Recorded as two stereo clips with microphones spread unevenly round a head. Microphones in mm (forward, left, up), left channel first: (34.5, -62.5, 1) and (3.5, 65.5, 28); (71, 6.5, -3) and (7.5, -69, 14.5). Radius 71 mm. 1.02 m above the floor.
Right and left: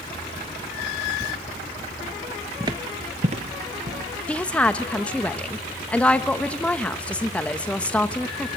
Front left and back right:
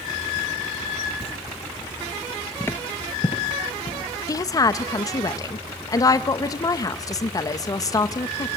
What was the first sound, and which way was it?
Footsteps, 75° left.